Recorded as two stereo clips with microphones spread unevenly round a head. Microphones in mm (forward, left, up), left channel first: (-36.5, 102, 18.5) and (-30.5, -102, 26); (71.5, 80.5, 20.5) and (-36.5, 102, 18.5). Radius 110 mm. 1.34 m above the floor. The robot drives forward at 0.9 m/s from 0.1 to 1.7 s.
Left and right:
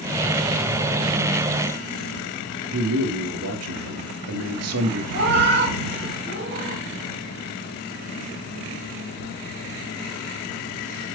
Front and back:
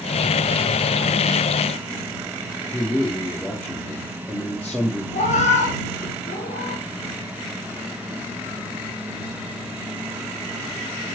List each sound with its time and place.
2.7 s a man speaking: 95° right, 2.5 m
5.1 s a cat meowing: 45° right, 3.5 m